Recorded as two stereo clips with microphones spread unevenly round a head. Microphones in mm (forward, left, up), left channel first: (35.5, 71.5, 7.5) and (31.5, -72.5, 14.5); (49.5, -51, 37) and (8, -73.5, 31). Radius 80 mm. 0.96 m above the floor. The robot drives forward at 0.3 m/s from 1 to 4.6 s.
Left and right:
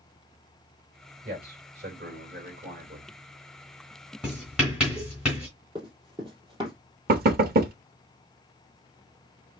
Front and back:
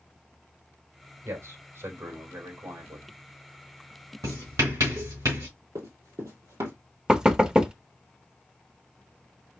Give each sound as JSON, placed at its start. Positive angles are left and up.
{"t": 1.2, "sound": "a man speaking", "azimuth_deg": -130, "distance_m": 3.5}
{"t": 4.2, "sound": "writing", "azimuth_deg": -175, "distance_m": 2.5}
{"t": 5.8, "sound": "running footsteps", "azimuth_deg": -150, "distance_m": 1.9}
{"t": 7.1, "sound": "knocking", "azimuth_deg": -80, "distance_m": 0.9}